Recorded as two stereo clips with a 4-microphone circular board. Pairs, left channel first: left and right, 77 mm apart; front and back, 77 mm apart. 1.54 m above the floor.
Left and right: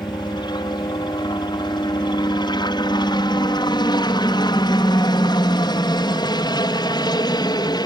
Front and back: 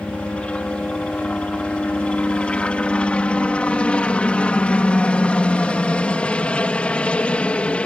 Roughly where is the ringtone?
No ringtone in this recording.